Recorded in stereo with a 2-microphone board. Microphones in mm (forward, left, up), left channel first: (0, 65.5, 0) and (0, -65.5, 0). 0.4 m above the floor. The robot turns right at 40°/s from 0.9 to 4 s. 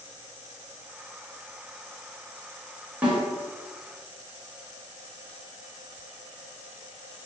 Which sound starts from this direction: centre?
A snare drum, at 3.0 s.